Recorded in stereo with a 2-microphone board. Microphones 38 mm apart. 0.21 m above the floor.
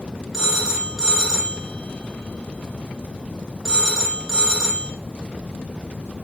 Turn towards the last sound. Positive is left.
turn(degrees=-5)  # may be behind; listen again after turning